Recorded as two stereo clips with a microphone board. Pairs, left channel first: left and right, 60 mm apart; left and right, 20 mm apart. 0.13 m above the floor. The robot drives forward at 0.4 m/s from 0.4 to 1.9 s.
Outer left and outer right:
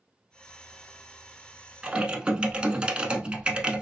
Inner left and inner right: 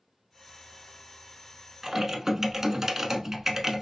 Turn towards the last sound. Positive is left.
turn(degrees=-20)  # may be behind; listen again after turning